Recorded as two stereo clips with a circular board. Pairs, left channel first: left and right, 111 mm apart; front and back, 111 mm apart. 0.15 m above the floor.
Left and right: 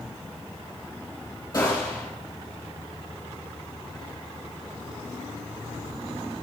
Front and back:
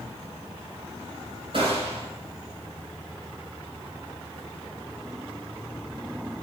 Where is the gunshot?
145° left, 3 m.